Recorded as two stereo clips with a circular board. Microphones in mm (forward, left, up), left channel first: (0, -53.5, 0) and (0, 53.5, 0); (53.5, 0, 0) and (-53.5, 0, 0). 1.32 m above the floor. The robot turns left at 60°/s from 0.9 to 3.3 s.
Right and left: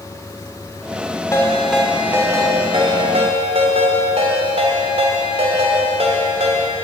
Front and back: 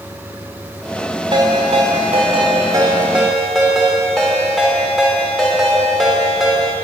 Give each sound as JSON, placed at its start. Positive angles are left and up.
{"t": 1.3, "sound": "a ringtone", "azimuth_deg": -150, "distance_m": 3.0}